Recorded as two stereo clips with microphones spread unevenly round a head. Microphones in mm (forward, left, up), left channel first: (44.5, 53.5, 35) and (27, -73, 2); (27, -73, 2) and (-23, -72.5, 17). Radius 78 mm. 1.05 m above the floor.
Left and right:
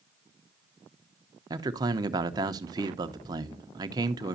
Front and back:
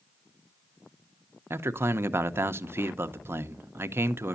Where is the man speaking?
140° right, 0.7 m.